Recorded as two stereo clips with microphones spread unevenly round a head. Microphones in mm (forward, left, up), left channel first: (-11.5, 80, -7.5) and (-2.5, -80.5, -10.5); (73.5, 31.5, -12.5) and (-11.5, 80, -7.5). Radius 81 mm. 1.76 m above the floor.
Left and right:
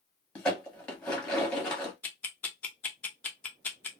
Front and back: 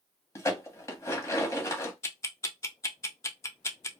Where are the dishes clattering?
15° left, 1.1 m.